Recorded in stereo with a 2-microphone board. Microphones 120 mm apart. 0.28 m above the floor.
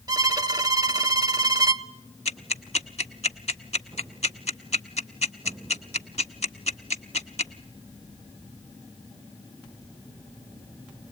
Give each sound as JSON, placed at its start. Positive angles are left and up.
{"t": 0.1, "sound": "a violin", "side_deg": -30, "distance_m": 0.6}
{"t": 2.2, "sound": "ticking", "side_deg": 70, "distance_m": 0.7}